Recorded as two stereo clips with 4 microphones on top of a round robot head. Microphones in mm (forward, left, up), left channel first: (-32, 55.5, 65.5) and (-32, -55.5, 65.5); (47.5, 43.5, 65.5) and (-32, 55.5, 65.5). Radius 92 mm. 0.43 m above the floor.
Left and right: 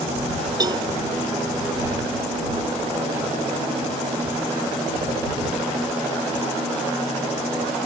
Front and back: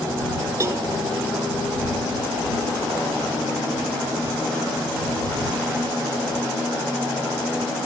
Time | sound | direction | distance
0.6 | a cowbell | 135° right | ?